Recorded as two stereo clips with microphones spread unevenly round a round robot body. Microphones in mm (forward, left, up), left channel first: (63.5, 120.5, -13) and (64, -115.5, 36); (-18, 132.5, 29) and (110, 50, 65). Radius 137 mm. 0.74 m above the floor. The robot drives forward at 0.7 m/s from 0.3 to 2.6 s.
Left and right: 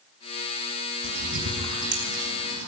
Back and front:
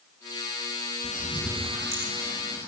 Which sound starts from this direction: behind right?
A bird, at 1.0 s.